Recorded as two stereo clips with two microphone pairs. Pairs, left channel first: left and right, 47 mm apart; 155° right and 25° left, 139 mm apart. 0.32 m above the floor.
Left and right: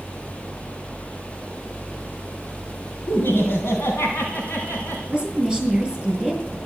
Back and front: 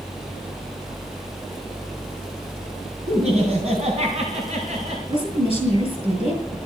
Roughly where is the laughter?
Ahead left.